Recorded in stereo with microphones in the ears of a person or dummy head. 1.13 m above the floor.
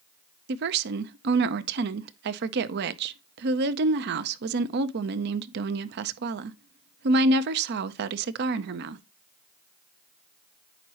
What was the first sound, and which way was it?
A woman speaking, 50° right (ahead or behind).